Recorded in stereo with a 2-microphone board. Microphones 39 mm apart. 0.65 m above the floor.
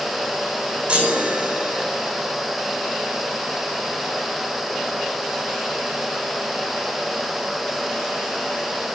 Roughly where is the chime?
Right.